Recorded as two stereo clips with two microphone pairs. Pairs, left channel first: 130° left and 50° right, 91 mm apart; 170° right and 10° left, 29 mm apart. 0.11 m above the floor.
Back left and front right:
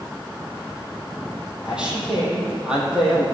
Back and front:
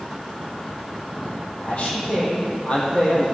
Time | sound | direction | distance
1.6 | a man speaking | 130° right | 4 m